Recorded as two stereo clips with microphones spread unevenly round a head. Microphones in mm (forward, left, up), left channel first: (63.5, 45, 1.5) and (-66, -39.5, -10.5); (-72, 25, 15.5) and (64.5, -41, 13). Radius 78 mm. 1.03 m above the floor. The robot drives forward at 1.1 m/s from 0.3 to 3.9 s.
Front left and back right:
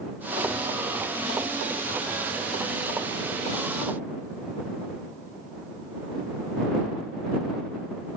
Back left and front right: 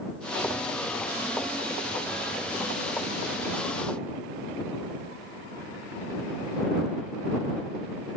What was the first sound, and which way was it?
Only background noise.